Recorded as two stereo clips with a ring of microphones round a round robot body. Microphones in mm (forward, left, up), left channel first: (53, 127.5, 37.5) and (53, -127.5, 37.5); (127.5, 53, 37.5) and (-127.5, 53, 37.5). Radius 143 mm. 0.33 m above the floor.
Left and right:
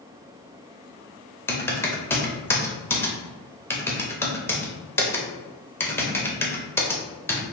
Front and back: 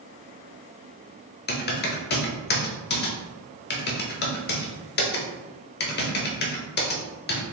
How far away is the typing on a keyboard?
About 0.9 m.